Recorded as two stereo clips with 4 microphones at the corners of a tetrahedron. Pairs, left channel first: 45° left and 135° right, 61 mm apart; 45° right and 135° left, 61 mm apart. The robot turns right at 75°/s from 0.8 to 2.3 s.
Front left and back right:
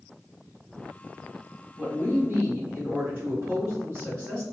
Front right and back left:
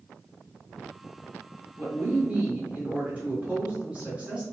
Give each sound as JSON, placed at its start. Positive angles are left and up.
{"t": 1.8, "sound": "a woman speaking", "azimuth_deg": 150, "distance_m": 1.4}